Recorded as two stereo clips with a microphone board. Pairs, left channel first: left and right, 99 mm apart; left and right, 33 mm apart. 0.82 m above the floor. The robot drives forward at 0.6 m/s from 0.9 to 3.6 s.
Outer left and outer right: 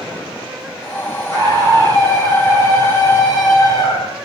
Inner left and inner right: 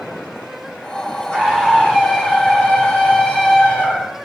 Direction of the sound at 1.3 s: 30° left (ahead or behind).